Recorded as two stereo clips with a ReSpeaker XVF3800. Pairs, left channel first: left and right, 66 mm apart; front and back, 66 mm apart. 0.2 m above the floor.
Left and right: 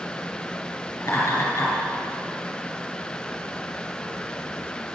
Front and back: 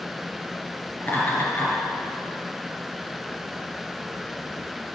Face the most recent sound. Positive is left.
turn(degrees=55)